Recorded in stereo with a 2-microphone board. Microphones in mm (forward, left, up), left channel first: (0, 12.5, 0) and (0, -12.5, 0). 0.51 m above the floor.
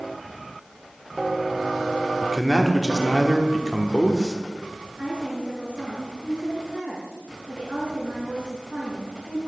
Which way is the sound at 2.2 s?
5° right (ahead or behind).